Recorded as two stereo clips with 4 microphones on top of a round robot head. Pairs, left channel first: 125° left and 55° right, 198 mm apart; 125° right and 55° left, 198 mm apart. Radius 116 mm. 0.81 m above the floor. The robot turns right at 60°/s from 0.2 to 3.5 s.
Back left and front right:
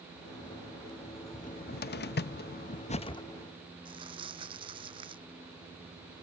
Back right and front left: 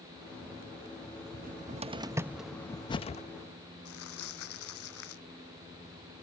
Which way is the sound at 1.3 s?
80° left.